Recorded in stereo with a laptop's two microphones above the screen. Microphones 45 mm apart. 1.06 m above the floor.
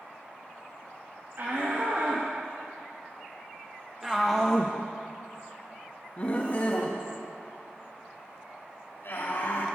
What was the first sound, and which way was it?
A shout, 50° right (ahead or behind).